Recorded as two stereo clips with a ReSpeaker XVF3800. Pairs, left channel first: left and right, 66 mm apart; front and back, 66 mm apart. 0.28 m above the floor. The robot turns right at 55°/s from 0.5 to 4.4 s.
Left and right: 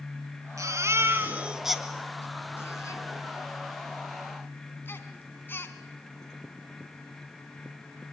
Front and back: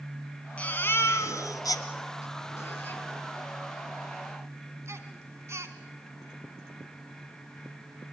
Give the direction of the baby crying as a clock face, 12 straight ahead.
2 o'clock.